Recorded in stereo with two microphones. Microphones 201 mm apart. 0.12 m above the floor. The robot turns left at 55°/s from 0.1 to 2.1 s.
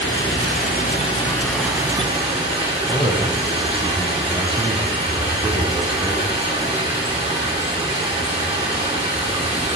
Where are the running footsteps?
I don't hear running footsteps.